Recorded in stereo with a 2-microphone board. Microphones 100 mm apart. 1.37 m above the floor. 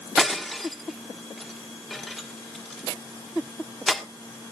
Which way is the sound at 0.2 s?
Centre (ahead or behind).